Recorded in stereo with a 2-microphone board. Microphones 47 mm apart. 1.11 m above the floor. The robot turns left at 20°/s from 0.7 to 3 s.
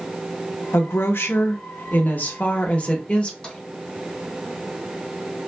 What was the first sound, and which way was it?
A woman speaking, 75° left.